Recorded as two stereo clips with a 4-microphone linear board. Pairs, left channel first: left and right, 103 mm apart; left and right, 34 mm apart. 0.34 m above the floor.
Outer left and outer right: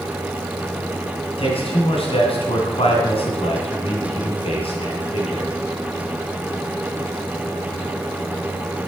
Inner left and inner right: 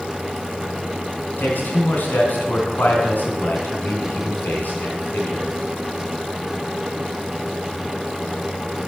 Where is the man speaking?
65° left (ahead or behind), 3 m.